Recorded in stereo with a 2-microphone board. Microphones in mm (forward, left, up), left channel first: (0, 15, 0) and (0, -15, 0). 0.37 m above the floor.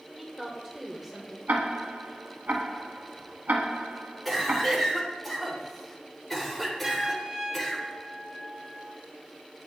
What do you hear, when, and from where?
0.2 s a woman speaking: 10° right (ahead or behind), 0.9 m
1.5 s ticking: 80° right, 0.7 m
4.2 s a cough: centre (ahead or behind), 1.4 m
6.8 s a trumpet: 25° right (ahead or behind), 1.1 m